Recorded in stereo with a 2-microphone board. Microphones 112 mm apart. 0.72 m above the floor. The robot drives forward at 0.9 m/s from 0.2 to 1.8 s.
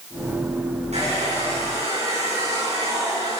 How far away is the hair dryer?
About 8.5 m.